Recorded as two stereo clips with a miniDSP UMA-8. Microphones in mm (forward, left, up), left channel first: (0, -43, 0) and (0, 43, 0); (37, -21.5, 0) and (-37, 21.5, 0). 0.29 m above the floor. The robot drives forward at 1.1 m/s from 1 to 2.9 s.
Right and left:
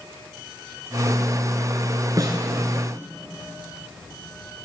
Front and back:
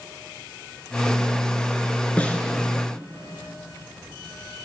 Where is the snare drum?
45° left, 3.5 m.